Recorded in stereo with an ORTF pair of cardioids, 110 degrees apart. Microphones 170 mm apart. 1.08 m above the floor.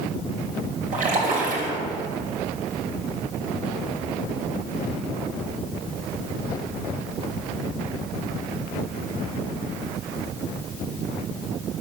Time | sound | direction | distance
0.9 | a splash | 50° right | 3 m